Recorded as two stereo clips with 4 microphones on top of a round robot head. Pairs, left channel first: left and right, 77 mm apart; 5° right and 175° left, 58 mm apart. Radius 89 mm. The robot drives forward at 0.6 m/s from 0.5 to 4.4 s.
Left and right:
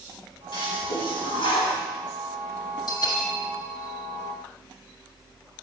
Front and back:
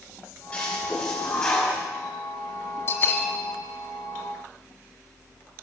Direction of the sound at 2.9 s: 45° left.